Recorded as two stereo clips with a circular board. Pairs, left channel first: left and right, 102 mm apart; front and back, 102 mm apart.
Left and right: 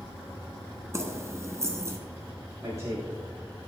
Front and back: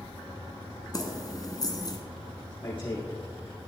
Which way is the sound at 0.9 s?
40° right.